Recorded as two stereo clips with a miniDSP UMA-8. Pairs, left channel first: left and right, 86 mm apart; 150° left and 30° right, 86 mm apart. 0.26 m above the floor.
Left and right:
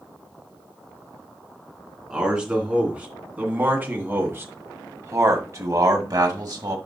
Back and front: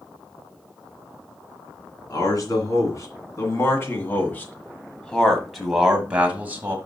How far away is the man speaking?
About 2.5 m.